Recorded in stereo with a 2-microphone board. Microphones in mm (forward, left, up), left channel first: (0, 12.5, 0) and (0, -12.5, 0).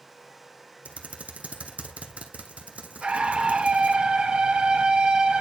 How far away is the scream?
About 2.5 m.